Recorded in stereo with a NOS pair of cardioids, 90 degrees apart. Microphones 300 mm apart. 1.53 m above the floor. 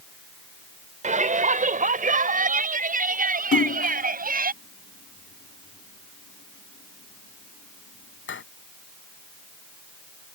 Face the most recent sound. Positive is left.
turn(degrees=40)